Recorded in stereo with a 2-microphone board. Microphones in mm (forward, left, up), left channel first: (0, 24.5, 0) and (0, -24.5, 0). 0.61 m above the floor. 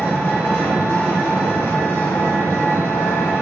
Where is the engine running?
65° left (ahead or behind), 0.7 m.